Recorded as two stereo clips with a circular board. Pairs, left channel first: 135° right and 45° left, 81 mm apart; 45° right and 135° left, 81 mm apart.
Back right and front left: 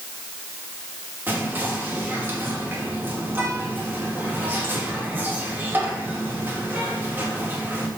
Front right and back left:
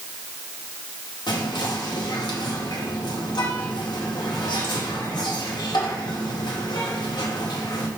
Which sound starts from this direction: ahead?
Whispering, at 1.3 s.